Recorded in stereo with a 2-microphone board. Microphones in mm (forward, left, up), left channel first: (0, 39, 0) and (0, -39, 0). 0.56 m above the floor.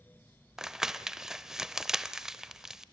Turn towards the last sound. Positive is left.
turn(degrees=-5)  # may be behind; listen again after turning